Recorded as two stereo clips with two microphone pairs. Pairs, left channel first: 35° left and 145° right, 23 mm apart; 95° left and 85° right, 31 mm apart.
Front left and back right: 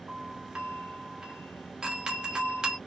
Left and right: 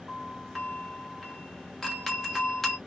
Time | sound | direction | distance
0.1 | a doorbell | 170° left | 1.5 m